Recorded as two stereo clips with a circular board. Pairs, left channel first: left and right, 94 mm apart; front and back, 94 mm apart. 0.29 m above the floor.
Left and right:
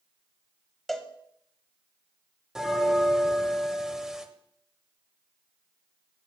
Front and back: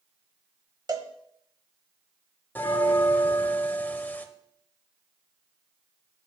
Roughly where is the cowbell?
Behind.